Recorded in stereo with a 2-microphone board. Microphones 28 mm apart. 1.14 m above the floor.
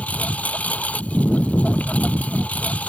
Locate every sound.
0.0 s a lawn mower: 60° left (ahead or behind)